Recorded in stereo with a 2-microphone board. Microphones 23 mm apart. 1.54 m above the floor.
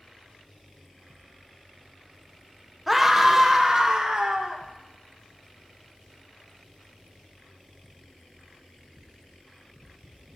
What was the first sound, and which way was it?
A scream, 5° right (ahead or behind).